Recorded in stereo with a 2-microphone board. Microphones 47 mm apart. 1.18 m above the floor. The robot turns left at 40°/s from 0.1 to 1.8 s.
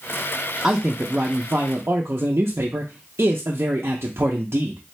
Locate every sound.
0.6 s a man speaking: 15° right, 0.5 m; by 4.8 s 60° right, 0.5 m